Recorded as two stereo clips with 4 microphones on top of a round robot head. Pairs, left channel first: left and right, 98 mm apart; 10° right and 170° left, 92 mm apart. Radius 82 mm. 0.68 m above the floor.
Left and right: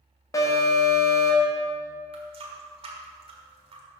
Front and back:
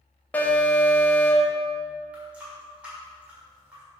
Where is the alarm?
55° left, 1.7 m.